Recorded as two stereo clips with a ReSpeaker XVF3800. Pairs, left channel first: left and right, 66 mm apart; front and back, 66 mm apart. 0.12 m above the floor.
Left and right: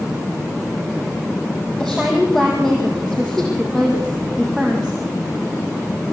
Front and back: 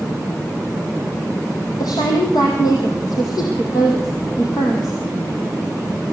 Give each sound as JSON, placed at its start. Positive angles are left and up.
{"t": 1.8, "sound": "a woman speaking", "azimuth_deg": 10, "distance_m": 4.5}